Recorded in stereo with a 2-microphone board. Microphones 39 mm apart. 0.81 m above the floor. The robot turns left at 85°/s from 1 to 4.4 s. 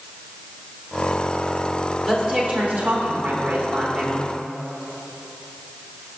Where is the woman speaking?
10° right, 2.5 m; by 4.2 s 165° left, 2.5 m.